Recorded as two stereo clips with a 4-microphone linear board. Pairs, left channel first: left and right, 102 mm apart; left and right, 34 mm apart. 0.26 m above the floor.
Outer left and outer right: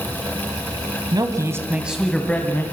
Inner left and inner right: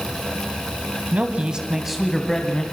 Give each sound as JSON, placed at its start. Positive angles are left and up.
{"t": 1.1, "sound": "a man speaking", "side_deg": -40, "distance_m": 1.6}